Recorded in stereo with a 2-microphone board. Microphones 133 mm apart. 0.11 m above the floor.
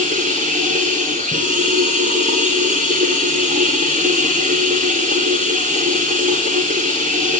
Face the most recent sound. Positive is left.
turn(degrees=-80)